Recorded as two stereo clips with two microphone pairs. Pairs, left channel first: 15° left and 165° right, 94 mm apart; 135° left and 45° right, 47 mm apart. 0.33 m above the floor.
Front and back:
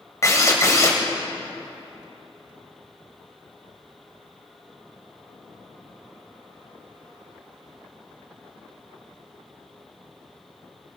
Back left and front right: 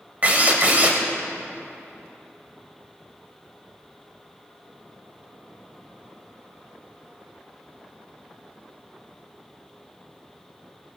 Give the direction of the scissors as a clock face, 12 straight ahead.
I don't hear scissors.